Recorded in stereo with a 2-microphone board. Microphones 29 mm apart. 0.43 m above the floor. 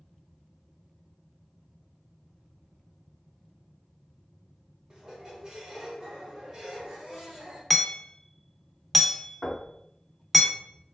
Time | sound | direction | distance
4.9 | a squeak | 20° right (ahead or behind) | 1.2 m
7.7 | hammering | 5° left (ahead or behind) | 0.5 m
9.4 | knocking | 40° left (ahead or behind) | 1.4 m